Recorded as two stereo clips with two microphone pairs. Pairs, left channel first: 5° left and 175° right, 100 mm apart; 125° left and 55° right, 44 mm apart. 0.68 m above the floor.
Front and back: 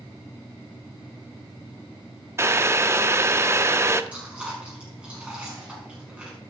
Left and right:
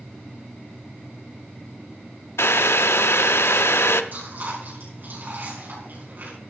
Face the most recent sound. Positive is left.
turn(degrees=-95)